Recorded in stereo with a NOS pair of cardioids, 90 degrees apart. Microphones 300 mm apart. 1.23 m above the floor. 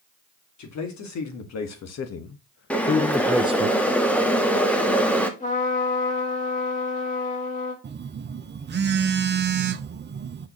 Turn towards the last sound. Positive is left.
turn(degrees=-35)